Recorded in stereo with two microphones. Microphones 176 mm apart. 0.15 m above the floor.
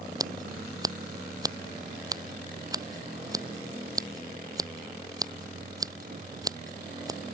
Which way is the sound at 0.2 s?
20° right (ahead or behind).